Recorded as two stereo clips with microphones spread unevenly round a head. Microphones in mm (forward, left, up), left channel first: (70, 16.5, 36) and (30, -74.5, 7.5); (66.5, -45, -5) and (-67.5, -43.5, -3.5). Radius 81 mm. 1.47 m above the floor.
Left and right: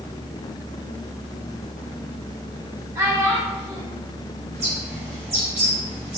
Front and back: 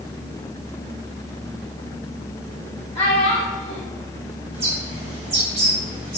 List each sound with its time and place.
3.0 s a child speaking: 55° right, 1.7 m
4.5 s a bird: 140° right, 1.3 m